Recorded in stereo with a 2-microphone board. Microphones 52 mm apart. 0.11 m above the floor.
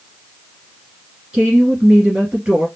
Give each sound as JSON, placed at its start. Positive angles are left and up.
{"t": 1.3, "sound": "a woman speaking", "side_deg": -20, "distance_m": 1.8}